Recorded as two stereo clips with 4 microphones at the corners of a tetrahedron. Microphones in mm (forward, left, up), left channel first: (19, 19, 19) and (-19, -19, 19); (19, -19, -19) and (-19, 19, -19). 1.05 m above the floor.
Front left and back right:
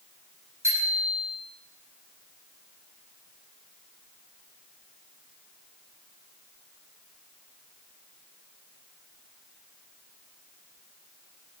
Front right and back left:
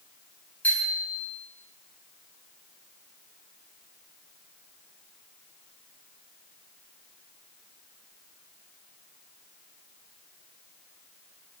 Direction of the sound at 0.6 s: 105° right.